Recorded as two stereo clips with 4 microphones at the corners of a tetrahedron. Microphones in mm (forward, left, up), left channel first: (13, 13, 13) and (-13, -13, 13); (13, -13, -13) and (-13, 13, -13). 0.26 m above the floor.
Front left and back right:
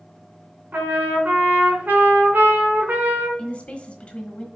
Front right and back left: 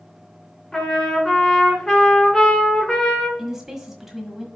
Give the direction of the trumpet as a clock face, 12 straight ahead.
4 o'clock.